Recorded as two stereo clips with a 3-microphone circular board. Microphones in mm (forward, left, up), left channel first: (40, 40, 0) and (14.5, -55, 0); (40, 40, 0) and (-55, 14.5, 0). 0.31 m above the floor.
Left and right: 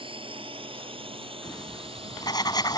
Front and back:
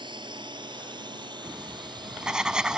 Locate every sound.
0.0 s a drone: 130° right; by 2.8 s 125° right
1.4 s writing: 115° left